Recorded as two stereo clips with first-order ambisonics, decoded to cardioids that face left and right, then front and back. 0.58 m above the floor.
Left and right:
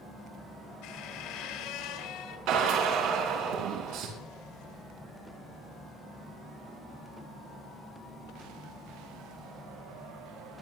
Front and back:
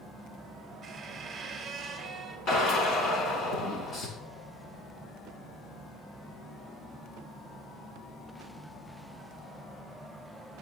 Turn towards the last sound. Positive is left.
turn(degrees=-55)